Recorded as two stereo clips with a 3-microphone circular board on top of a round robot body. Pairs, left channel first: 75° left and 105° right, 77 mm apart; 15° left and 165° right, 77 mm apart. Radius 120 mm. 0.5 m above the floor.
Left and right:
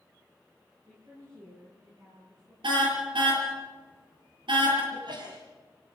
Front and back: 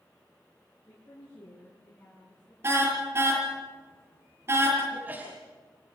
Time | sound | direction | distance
0.9 | a woman speaking | 50° right | 7.5 m
2.6 | a car horn | 105° right | 7 m
4.9 | a sneeze | 95° right | 5 m